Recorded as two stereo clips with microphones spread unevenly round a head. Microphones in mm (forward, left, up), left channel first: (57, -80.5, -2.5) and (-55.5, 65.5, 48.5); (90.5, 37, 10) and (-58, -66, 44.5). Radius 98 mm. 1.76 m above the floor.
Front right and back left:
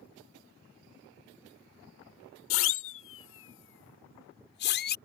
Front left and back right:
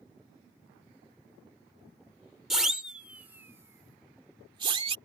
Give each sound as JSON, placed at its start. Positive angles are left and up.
{"t": 2.5, "sound": "a siren", "azimuth_deg": -60}